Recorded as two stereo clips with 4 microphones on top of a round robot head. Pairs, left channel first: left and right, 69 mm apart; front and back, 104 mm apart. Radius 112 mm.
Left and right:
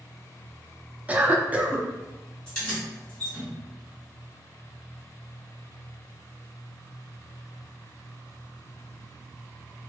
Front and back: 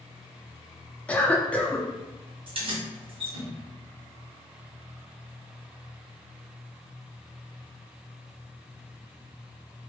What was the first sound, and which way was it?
A cough, 55° right.